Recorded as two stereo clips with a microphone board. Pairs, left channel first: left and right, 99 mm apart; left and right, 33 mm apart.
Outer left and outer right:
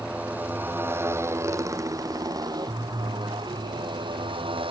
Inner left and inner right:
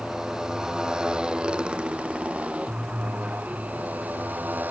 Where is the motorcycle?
15° right (ahead or behind); by 4.7 s 60° right (ahead or behind).